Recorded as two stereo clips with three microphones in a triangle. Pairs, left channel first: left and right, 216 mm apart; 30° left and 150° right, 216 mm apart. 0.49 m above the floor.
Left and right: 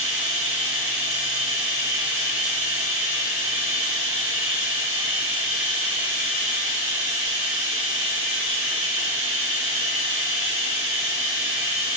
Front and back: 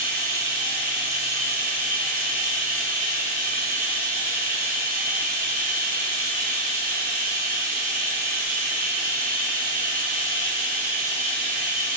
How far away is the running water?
About 1.9 m.